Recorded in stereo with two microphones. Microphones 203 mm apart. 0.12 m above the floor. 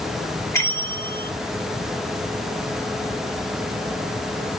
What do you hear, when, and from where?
0.5 s a bell: 15° left (ahead or behind), 2 m